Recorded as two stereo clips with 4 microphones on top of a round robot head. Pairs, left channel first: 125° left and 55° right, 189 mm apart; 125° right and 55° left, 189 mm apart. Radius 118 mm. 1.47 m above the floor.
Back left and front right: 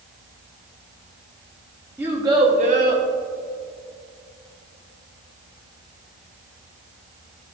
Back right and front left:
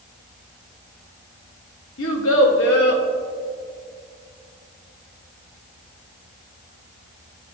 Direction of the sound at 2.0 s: 130° right.